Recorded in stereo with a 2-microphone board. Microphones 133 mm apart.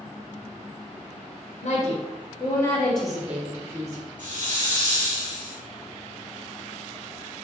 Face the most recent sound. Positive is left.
turn(degrees=-70)  # may be behind; listen again after turning